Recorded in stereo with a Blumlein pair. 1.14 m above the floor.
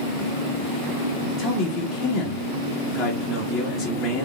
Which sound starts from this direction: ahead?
A man speaking, at 1.4 s.